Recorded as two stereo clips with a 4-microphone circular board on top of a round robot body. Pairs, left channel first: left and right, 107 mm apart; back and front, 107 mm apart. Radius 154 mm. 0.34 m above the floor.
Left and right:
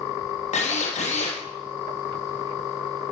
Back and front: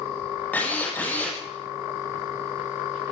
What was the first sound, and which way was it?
A drill, 105° left.